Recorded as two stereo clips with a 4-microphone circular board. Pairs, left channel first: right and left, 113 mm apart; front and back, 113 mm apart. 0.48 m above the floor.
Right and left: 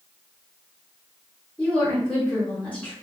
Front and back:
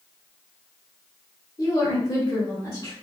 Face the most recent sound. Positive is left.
turn(degrees=-20)